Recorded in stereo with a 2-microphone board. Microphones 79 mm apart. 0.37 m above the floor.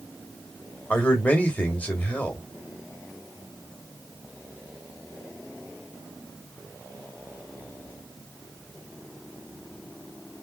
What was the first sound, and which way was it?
A man speaking, 20° left (ahead or behind).